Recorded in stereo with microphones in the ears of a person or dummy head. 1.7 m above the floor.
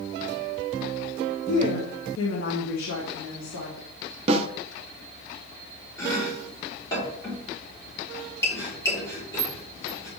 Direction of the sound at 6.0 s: 20° left (ahead or behind).